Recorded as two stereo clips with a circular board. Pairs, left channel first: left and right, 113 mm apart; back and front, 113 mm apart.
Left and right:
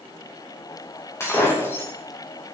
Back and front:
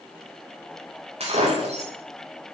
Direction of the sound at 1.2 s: 20° left.